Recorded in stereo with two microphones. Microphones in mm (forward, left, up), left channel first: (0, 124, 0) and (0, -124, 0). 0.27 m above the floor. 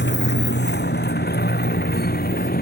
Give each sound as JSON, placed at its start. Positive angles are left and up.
{"t": 0.0, "sound": "a motorcycle", "side_deg": 40}